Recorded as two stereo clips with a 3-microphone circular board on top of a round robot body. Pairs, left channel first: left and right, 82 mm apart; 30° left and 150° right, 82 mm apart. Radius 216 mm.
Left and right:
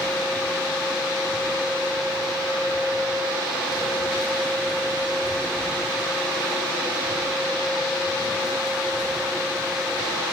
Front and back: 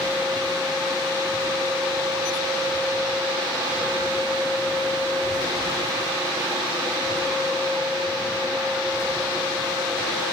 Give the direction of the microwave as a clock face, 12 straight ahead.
I don't hear a microwave.